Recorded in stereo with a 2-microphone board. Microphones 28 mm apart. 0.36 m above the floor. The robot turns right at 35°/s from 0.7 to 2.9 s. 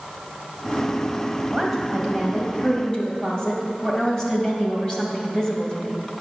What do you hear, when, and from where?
1.5 s a woman speaking: 25° right, 2 m; by 6.0 s 25° left, 2 m